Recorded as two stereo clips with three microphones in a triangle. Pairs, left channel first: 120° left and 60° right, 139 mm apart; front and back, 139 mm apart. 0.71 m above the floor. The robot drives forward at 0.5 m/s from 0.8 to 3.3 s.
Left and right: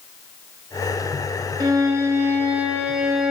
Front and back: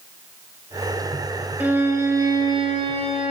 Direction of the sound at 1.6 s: 110° right.